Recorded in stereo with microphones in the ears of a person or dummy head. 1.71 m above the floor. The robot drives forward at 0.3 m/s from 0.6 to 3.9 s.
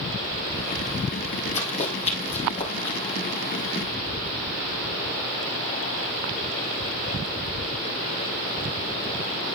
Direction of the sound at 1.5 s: 25° left (ahead or behind).